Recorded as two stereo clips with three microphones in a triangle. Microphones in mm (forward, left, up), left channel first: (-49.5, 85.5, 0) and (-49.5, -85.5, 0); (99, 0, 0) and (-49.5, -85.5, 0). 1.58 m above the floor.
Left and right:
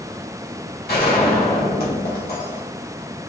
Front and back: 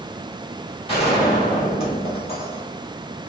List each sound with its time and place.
0.9 s a gunshot: 85° left, 2.0 m